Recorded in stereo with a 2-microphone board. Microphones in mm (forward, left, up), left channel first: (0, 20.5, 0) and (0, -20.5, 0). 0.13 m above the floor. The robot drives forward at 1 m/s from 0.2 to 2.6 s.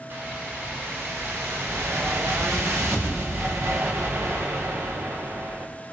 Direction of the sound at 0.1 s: 55° right (ahead or behind).